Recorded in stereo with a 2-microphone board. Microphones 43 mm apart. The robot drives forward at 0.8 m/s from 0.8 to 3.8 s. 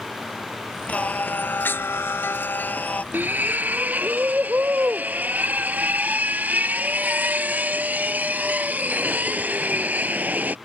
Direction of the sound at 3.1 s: 45° right (ahead or behind).